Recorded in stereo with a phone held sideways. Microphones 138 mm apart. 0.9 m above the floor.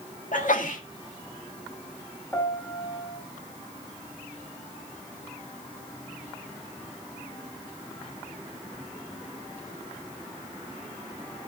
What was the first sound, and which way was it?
A sneeze, 70° left (ahead or behind).